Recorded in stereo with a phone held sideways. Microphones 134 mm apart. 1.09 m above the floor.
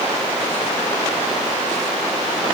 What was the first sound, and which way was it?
Only background noise.